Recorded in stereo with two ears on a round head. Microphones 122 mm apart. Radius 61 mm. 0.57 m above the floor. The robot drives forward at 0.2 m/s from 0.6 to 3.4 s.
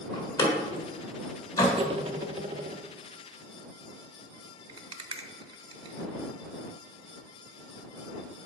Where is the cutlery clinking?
40° right (ahead or behind), 0.6 m.